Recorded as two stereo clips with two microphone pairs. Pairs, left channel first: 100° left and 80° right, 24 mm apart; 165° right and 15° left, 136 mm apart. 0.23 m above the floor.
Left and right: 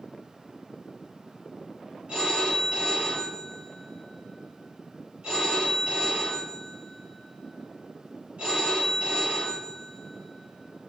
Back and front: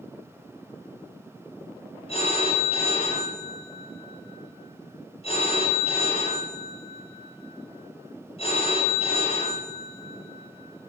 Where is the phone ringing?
120° right, 4.5 m.